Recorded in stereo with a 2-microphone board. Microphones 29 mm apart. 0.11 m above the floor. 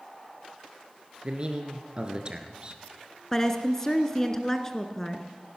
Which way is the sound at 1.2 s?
35° right (ahead or behind).